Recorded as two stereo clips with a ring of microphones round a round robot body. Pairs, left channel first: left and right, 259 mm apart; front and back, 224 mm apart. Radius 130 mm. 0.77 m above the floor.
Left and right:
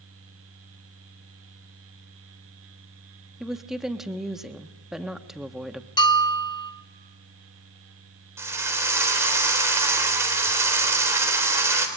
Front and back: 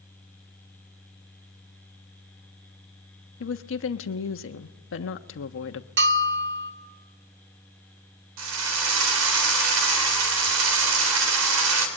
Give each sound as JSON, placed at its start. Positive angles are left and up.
{"t": 3.4, "sound": "a woman speaking", "azimuth_deg": 0, "distance_m": 1.3}
{"t": 6.0, "sound": "a bell", "azimuth_deg": 160, "distance_m": 1.7}
{"t": 8.4, "sound": "a drill", "azimuth_deg": -170, "distance_m": 3.5}